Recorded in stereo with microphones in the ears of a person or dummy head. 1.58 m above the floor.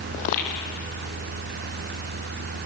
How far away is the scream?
I don't hear a scream.